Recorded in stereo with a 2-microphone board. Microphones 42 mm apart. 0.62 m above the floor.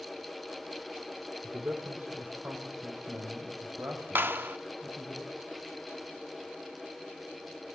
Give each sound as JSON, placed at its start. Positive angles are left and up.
{"t": 1.4, "sound": "a man speaking", "side_deg": -40, "distance_m": 1.8}
{"t": 4.2, "sound": "a clap", "side_deg": -55, "distance_m": 0.8}